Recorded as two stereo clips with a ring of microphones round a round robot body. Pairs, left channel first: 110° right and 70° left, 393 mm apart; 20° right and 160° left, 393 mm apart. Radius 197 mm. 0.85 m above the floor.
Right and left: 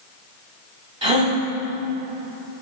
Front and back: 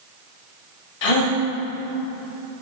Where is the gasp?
10° right, 1.2 m.